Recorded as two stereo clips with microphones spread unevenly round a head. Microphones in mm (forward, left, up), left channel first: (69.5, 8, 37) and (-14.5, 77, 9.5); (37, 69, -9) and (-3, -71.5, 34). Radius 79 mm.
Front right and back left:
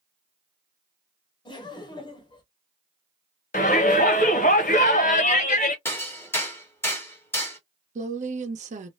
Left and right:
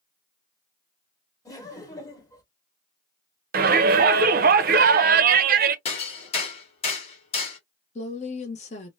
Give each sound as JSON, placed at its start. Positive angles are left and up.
{"t": 1.4, "sound": "laughter", "azimuth_deg": 15, "distance_m": 1.4}
{"t": 3.5, "sound": "a shout", "azimuth_deg": -80, "distance_m": 0.6}
{"t": 5.8, "sound": "hammering", "azimuth_deg": 20, "distance_m": 1.2}
{"t": 8.0, "sound": "a woman speaking", "azimuth_deg": 125, "distance_m": 0.8}